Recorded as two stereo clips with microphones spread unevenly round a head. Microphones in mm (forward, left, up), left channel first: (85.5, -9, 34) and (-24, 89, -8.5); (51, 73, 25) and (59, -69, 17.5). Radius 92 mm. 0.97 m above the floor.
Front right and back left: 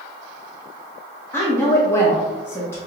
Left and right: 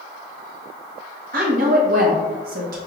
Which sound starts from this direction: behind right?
A woman speaking, at 1.3 s.